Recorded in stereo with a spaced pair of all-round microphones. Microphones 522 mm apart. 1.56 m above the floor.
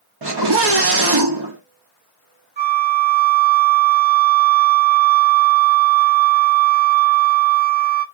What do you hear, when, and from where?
0.2 s a scream: 50° right (ahead or behind), 0.7 m
2.6 s a flute: 60° right (ahead or behind), 0.8 m